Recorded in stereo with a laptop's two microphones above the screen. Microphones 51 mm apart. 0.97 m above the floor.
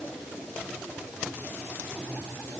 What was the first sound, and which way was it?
Only background noise.